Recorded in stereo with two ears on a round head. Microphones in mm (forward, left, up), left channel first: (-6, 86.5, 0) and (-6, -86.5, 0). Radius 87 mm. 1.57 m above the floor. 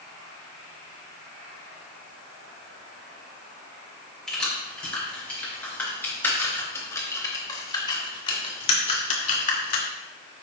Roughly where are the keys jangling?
Centre.